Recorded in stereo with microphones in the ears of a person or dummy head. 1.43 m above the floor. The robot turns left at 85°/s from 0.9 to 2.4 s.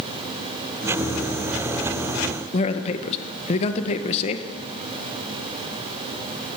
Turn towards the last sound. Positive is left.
turn(degrees=40)  # may be behind; listen again after turning